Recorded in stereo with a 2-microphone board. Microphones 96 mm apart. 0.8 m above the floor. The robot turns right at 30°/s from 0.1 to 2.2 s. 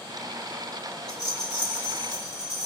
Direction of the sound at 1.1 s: 10° left.